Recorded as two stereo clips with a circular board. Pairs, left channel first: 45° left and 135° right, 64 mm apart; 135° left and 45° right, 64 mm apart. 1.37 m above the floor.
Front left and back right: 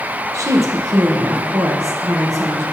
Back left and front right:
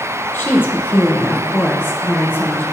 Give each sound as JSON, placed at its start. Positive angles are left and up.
{"t": 0.3, "sound": "a woman speaking", "azimuth_deg": -170, "distance_m": 1.4}